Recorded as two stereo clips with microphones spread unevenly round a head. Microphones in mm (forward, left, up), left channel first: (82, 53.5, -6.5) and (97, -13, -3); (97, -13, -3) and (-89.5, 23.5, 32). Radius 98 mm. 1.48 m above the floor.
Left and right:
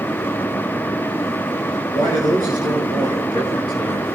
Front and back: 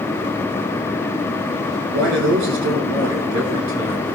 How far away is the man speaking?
About 5.5 m.